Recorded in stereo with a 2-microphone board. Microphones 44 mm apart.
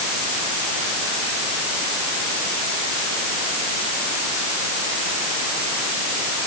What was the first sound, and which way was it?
Only background noise.